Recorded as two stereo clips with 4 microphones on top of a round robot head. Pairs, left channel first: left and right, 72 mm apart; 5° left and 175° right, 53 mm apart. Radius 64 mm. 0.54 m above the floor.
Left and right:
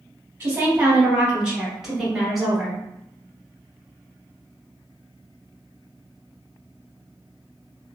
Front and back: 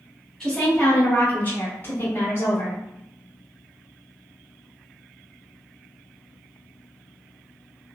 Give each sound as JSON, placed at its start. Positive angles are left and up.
{"t": 0.4, "sound": "a woman speaking", "azimuth_deg": -60, "distance_m": 1.2}